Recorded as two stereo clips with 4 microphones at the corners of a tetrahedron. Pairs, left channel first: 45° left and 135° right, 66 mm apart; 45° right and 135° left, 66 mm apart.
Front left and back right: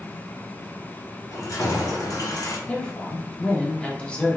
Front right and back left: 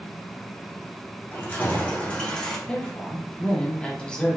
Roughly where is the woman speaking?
Ahead.